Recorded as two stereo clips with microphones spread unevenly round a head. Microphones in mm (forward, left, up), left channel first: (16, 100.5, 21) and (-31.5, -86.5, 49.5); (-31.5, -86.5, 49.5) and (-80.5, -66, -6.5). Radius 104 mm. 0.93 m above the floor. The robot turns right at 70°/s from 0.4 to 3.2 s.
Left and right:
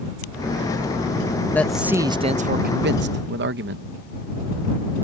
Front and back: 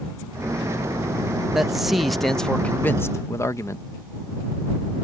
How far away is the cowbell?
I don't hear a cowbell.